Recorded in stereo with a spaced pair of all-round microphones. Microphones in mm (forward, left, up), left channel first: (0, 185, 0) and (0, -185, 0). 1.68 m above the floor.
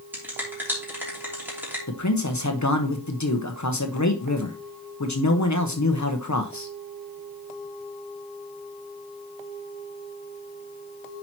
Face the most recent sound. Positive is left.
turn(degrees=50)  # may be behind; listen again after turning